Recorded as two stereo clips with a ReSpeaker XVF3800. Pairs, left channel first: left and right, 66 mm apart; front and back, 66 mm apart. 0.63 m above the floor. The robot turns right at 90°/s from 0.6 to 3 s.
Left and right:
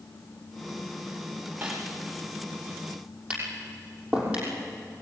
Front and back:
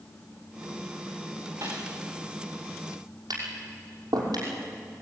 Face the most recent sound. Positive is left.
turn(degrees=-160)